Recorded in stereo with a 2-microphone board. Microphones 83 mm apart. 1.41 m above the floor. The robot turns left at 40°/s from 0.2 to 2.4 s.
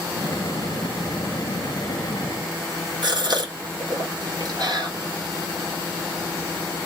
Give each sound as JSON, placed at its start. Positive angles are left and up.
{"t": 3.0, "sound": "a gasp", "side_deg": -60, "distance_m": 1.3}